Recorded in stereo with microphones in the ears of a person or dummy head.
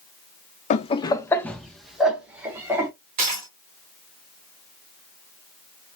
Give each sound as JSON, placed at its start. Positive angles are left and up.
{"t": 0.7, "sound": "laughter", "side_deg": 40, "distance_m": 0.7}
{"t": 3.2, "sound": "a dropped coin", "side_deg": -25, "distance_m": 1.4}